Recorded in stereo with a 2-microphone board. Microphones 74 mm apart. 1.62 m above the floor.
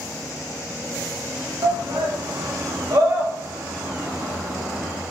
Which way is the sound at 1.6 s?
80° right.